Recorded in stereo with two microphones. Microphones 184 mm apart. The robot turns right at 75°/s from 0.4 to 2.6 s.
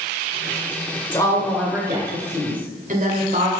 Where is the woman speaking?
145° left, 1.4 m; by 3.5 s 100° right, 1.4 m.